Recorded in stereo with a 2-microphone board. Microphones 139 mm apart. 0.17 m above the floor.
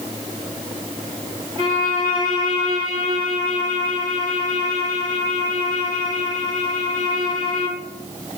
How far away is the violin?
About 6.5 m.